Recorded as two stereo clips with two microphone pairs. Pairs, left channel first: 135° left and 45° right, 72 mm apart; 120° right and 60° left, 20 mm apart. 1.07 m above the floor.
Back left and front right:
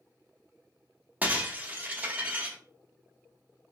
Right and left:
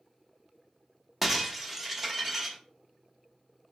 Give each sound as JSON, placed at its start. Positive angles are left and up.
{"t": 1.2, "sound": "breaking glass", "azimuth_deg": 0, "distance_m": 0.6}